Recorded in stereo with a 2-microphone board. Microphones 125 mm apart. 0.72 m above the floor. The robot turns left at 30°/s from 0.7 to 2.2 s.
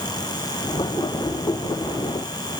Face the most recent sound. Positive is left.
No sound to turn to.